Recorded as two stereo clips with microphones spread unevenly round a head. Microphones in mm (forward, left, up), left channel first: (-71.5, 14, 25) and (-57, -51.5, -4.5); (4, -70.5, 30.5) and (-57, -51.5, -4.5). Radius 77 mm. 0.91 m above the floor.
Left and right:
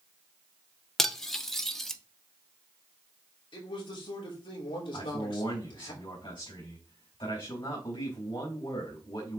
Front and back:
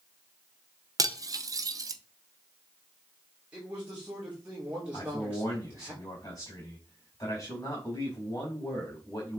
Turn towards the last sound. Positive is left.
turn(degrees=50)